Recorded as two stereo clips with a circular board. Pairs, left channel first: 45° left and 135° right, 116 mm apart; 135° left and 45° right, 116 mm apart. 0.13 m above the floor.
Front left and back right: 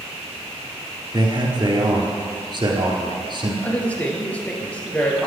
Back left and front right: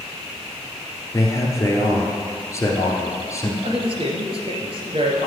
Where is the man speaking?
170° right, 2.0 m.